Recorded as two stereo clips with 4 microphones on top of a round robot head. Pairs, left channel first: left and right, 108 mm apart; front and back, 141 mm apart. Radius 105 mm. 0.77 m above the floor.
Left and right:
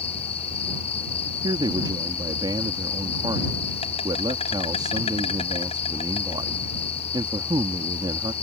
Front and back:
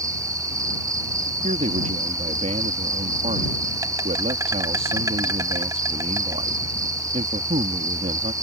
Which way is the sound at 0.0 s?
115° left.